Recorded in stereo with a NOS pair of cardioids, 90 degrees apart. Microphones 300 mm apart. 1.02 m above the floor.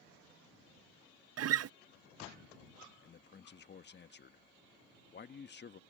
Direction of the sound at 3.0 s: 35° left.